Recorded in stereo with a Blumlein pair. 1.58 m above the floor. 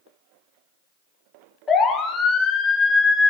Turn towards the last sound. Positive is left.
turn(degrees=10)